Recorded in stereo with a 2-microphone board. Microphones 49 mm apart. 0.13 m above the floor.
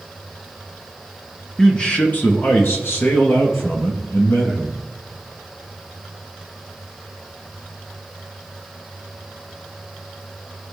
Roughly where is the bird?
No bird in this recording.